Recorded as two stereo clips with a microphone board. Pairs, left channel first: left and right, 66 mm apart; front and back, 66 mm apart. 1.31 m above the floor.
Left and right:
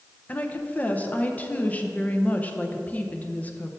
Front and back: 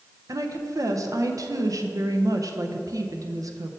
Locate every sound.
0.3 s a woman speaking: 155° left, 0.6 m